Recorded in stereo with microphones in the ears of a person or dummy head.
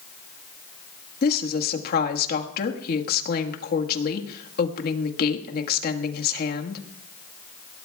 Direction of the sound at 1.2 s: 60° left (ahead or behind).